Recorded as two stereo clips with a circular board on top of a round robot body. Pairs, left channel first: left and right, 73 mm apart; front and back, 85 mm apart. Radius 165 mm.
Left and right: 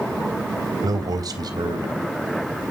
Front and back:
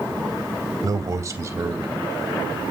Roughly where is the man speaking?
Behind right.